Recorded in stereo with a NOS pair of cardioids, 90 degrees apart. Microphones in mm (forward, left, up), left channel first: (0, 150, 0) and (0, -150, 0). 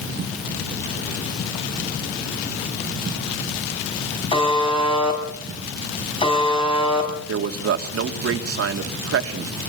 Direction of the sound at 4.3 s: 20° left.